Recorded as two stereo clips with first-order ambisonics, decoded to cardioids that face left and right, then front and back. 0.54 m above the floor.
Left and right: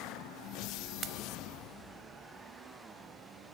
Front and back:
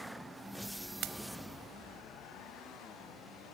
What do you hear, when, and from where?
1.0 s a pop: 145° right, 0.6 m